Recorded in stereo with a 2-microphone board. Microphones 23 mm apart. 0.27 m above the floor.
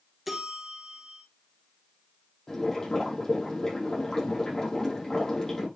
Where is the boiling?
25° left (ahead or behind), 6 m.